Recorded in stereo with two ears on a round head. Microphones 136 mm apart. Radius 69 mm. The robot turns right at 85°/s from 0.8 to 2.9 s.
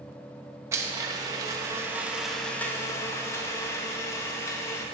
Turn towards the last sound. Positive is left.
turn(degrees=20)  # may be behind; listen again after turning